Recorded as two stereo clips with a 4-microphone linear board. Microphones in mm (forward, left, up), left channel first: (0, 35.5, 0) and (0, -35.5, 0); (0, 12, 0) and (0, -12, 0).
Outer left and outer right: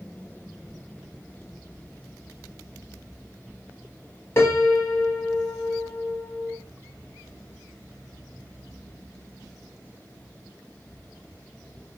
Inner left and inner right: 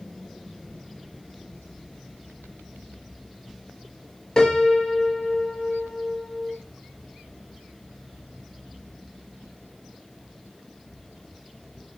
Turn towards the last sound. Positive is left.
turn(degrees=35)  # may be behind; listen again after turning